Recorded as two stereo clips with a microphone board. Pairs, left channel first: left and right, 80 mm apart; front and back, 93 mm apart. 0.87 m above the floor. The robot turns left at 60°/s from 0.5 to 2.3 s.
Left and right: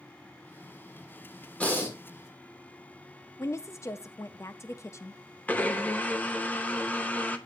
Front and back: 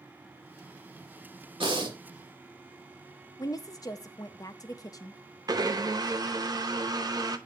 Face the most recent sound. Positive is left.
turn(degrees=155)